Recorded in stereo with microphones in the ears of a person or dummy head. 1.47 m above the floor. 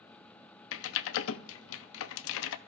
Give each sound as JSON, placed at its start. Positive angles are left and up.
{"t": 0.7, "sound": "typing on a keyboard", "side_deg": 80, "distance_m": 0.5}